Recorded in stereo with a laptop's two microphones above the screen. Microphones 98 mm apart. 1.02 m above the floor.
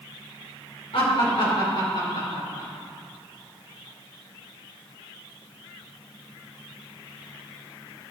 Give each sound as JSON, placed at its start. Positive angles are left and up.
{"t": 0.9, "sound": "laughter", "side_deg": 70, "distance_m": 2.5}